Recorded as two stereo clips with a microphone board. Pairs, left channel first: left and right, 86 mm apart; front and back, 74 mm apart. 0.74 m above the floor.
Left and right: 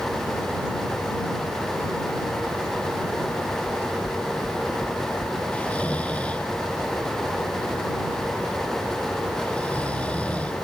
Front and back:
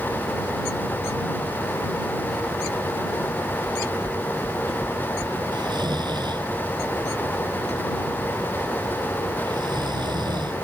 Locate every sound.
3.6 s knocking: 130° left
5.5 s snoring: 165° left